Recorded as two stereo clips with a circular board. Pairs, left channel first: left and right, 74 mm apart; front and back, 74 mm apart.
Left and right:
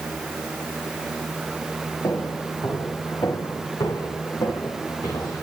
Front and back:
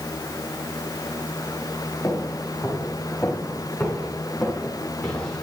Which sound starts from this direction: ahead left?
Footsteps, at 2.0 s.